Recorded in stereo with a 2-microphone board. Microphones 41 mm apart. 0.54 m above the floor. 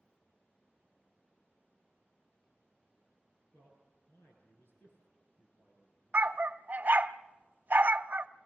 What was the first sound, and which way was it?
A man speaking, 65° left (ahead or behind).